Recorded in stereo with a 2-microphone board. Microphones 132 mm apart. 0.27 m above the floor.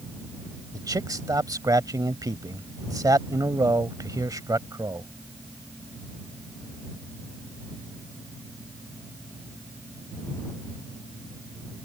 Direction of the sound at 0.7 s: 30° right (ahead or behind).